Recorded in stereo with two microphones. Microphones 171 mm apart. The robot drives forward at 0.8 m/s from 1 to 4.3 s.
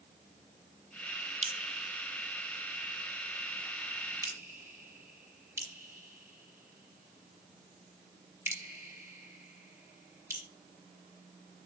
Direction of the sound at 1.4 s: 45° right (ahead or behind).